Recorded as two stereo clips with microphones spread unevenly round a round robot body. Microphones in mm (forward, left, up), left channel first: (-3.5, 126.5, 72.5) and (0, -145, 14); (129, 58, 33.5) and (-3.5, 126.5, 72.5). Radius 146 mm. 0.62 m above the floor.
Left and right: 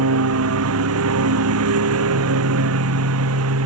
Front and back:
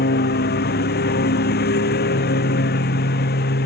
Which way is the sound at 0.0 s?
50° right.